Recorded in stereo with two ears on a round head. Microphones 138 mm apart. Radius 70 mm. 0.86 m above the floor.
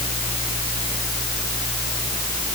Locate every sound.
Only background noise.